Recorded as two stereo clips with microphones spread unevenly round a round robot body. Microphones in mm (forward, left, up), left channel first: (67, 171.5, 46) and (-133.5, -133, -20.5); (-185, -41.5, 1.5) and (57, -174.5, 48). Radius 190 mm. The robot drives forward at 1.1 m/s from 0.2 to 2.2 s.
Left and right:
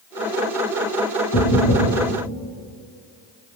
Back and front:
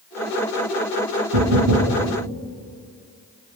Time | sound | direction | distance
1.3 | knocking | 5° right | 7 m